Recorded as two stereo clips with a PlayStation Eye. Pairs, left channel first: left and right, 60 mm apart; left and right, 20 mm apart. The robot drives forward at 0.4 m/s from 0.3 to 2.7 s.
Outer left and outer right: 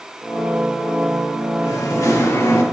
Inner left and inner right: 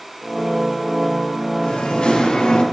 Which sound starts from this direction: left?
Singing, at 1.6 s.